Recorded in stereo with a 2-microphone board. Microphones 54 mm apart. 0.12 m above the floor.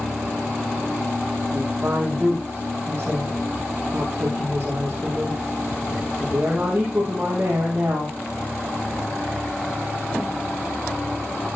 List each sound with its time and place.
1.5 s a woman speaking: 25° right (ahead or behind), 3.5 m